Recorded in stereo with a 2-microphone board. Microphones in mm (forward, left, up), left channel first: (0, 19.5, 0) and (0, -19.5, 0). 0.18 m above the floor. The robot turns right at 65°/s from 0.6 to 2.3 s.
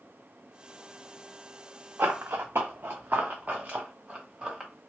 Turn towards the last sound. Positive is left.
turn(degrees=-20)  # may be behind; listen again after turning